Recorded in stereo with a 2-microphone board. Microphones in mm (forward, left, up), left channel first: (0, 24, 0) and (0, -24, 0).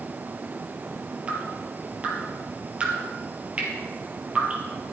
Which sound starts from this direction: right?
Dripping, at 1.3 s.